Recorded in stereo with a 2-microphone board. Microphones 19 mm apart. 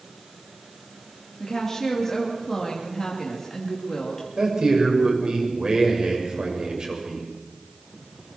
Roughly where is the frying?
I don't hear frying.